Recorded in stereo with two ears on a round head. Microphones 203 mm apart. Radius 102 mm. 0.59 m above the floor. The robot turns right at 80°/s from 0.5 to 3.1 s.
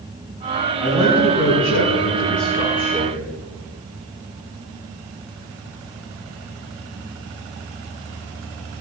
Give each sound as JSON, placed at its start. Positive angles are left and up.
{"t": 0.8, "sound": "a man speaking", "azimuth_deg": 0, "distance_m": 5.0}